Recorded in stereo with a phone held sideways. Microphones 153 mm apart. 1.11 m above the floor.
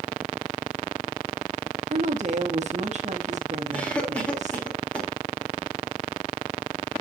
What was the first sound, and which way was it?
A woman speaking, 50° right (ahead or behind).